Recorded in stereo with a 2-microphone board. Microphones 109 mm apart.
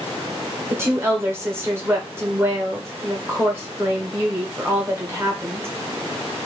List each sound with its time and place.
0.7 s a woman speaking: 20° right (ahead or behind), 1.3 m